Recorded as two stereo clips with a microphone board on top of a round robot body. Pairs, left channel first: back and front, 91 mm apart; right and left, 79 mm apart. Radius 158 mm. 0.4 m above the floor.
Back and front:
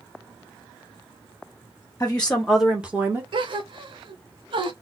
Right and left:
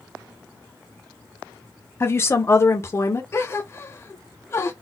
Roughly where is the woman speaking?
Behind right.